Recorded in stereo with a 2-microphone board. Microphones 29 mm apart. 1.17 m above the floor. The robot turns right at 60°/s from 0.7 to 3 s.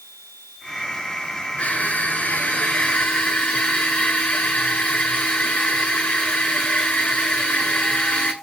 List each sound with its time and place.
1.6 s crushing: 40° left, 8.5 m; by 8.3 s 125° left, 8.5 m